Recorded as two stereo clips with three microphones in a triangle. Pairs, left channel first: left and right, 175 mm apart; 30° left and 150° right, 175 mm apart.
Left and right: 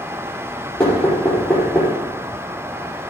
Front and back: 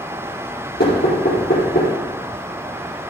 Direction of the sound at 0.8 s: 10° left.